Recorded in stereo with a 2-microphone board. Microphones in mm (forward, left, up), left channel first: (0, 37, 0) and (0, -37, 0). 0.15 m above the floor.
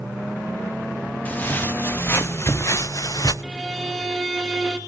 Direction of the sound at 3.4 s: Centre (ahead or behind).